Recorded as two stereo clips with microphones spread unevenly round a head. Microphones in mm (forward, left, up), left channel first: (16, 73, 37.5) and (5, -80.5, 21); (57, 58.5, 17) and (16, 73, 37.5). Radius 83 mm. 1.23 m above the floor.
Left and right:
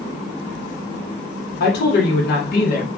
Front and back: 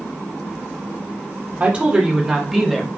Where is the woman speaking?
100° left, 0.8 m; by 2.9 s 55° left, 1.0 m.